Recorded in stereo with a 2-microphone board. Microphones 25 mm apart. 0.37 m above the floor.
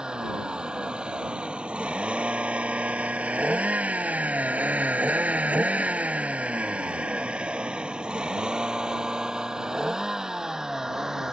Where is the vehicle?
35° right (ahead or behind); by 11.3 s 20° right (ahead or behind).